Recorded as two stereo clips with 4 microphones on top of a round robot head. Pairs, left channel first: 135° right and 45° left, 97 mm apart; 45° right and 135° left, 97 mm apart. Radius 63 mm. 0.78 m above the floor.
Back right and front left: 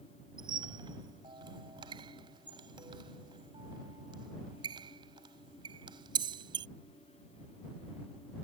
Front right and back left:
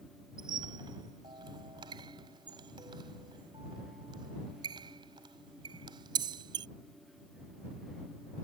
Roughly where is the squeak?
Left.